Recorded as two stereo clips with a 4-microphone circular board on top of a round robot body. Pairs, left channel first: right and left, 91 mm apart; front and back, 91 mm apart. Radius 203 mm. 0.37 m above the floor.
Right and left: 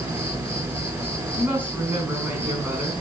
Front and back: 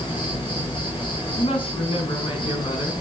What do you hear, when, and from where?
0.0 s an insect: 30° left, 5.5 m
1.4 s a woman speaking: 20° left, 5 m